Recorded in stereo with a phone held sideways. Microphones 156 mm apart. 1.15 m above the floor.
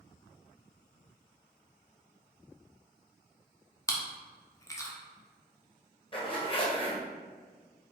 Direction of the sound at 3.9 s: 20° left (ahead or behind).